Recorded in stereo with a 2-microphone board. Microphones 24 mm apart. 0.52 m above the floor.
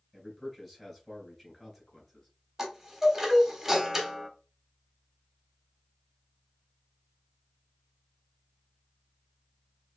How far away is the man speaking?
About 3 m.